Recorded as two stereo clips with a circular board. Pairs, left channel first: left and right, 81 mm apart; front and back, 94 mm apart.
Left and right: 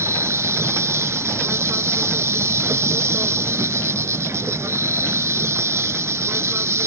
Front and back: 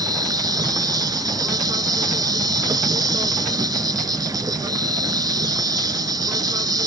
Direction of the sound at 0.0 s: 140° right.